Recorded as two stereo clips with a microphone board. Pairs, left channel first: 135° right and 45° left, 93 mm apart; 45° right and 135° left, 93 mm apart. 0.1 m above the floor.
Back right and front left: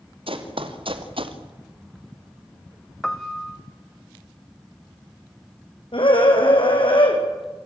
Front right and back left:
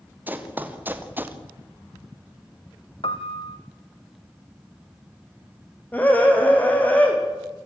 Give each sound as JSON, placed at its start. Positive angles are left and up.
{"t": 0.3, "sound": "running footsteps", "azimuth_deg": 65, "distance_m": 3.5}
{"t": 3.0, "sound": "a piano", "azimuth_deg": -50, "distance_m": 1.7}
{"t": 5.9, "sound": "a scream", "azimuth_deg": -115, "distance_m": 5.5}